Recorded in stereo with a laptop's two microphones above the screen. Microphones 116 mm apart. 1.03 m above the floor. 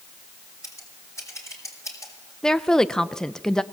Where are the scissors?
25° left (ahead or behind), 5.5 m.